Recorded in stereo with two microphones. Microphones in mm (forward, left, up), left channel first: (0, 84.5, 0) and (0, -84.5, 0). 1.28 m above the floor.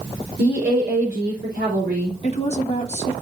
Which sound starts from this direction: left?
A woman speaking, at 2.2 s.